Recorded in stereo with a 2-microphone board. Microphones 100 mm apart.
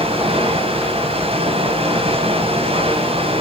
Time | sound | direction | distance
0.0 | running water | 70° right (ahead or behind) | 4.5 m